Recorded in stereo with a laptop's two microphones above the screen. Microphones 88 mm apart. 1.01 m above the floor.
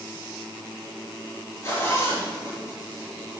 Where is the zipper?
35° left (ahead or behind), 6.5 m.